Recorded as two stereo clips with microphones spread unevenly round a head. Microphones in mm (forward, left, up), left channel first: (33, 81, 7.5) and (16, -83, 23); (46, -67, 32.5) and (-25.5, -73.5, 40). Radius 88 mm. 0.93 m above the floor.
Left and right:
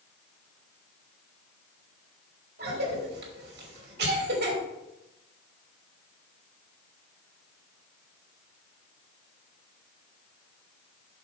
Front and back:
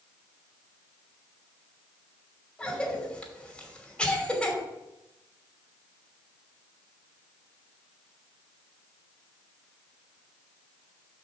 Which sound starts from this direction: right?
A cough, at 2.6 s.